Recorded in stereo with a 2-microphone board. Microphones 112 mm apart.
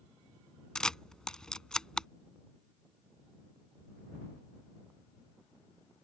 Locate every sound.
0.8 s a camera shutter: 5° left (ahead or behind)